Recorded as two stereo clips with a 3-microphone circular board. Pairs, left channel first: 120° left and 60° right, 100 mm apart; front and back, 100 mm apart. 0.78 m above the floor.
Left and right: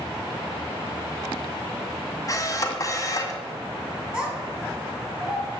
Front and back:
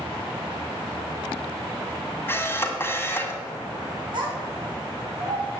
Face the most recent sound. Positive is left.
turn(degrees=-145)